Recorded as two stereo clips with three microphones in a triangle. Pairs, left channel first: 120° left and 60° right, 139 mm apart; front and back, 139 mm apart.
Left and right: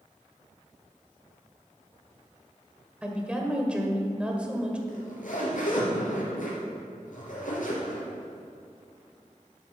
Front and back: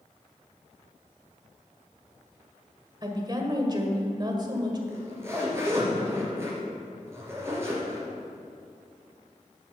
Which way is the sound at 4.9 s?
110° left.